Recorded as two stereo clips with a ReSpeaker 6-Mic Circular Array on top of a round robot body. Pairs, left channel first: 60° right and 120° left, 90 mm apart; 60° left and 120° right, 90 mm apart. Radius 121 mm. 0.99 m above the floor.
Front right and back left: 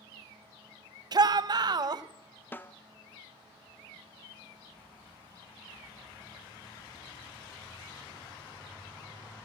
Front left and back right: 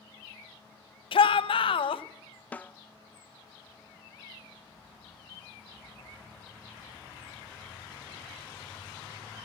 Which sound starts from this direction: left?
A shout, at 1.1 s.